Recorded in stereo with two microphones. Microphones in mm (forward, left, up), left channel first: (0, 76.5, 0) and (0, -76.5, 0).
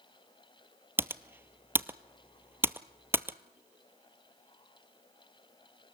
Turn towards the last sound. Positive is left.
turn(degrees=-15)  # may be behind; listen again after turning